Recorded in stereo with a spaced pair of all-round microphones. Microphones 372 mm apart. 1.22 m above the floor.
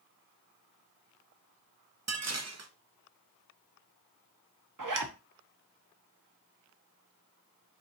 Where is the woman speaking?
No woman speaking in this recording.